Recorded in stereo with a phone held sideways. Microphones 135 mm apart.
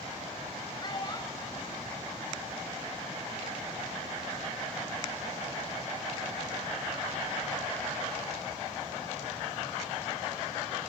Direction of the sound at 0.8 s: 35° left (ahead or behind).